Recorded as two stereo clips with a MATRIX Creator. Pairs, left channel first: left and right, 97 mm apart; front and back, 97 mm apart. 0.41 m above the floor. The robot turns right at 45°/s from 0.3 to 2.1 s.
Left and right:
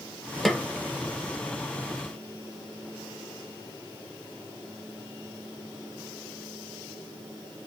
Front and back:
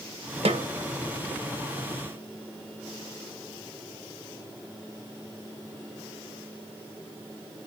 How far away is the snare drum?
About 0.6 m.